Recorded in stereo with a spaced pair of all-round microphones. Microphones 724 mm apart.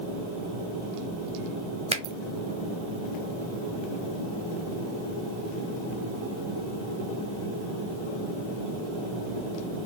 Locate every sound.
1.9 s a finger snap: 10° right (ahead or behind), 0.8 m